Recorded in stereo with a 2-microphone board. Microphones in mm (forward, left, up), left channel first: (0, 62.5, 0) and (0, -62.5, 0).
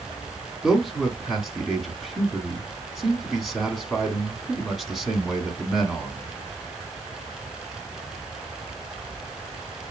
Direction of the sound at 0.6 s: Centre (ahead or behind).